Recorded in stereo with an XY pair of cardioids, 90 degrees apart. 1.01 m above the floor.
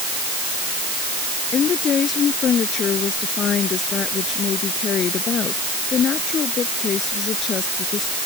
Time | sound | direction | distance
1.5 | a woman speaking | 60° left | ?